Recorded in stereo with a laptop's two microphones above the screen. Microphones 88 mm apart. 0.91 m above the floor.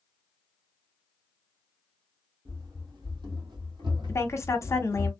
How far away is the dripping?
No dripping in this recording.